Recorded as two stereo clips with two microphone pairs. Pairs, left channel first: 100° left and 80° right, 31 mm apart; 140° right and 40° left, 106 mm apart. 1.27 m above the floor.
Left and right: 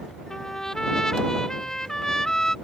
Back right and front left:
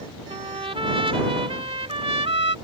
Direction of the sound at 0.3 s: 30° left.